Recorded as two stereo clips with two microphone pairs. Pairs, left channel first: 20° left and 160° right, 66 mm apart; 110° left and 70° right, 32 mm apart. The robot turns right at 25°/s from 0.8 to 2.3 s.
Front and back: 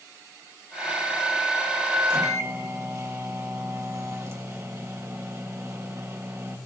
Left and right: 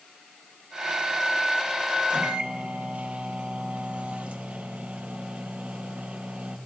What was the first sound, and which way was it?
A microwave, 120° right.